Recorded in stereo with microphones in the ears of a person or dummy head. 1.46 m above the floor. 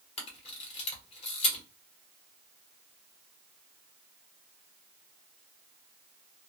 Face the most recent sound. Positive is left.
turn(degrees=35)  # may be behind; listen again after turning